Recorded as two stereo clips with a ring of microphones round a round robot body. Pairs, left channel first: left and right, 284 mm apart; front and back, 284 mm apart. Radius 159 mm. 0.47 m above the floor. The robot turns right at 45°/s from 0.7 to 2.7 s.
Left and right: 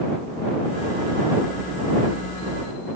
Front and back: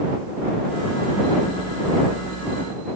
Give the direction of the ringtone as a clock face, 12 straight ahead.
No ringtone in this recording.